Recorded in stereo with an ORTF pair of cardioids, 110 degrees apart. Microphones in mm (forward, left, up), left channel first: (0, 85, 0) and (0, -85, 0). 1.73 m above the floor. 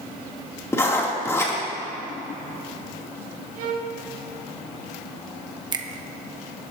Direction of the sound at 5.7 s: 25° right.